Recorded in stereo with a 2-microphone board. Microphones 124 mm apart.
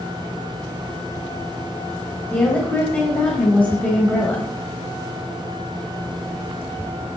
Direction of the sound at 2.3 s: 10° left (ahead or behind).